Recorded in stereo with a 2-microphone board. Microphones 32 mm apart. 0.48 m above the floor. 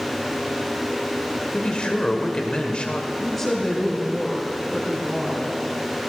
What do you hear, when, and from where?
1.5 s a man speaking: 30° left (ahead or behind), 1.8 m
3.2 s a woman speaking: 5° left (ahead or behind), 4.5 m